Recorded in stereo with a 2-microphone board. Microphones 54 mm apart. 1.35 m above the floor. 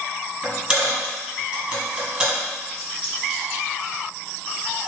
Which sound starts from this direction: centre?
A dropped coin, at 0.4 s.